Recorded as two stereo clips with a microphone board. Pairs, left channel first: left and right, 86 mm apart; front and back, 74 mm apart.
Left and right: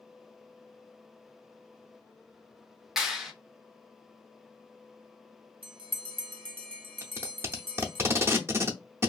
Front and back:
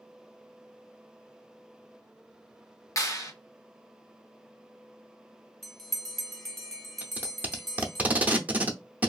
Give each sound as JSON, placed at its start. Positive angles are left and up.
{"t": 3.0, "sound": "a clap", "azimuth_deg": -10, "distance_m": 0.7}
{"t": 5.6, "sound": "a bell", "azimuth_deg": -85, "distance_m": 0.7}
{"t": 7.0, "sound": "tape being pulled", "azimuth_deg": -125, "distance_m": 0.6}